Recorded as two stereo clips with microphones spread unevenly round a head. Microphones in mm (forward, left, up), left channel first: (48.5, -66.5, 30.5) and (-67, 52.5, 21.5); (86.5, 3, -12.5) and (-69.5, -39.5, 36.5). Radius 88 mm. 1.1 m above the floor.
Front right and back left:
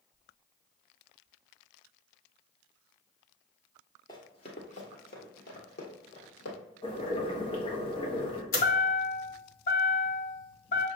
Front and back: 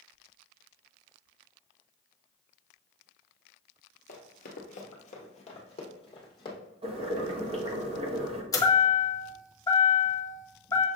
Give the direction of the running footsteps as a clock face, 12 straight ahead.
12 o'clock.